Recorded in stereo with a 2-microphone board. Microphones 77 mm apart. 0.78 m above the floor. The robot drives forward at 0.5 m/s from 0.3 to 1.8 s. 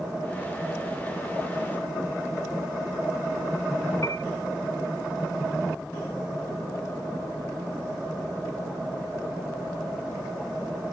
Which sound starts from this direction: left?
A piano, at 4.0 s.